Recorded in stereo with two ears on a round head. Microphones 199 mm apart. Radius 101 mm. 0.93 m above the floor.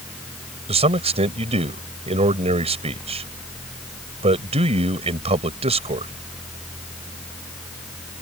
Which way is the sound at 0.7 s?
30° right (ahead or behind).